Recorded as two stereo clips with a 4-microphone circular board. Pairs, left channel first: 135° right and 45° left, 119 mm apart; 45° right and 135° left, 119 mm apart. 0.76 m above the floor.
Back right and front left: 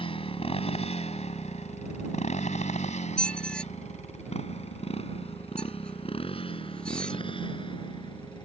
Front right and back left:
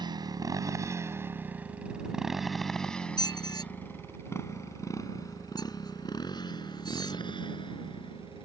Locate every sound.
0.0 s a motorcycle: 175° right; by 8.5 s 90° right
3.2 s a squeak: 60° right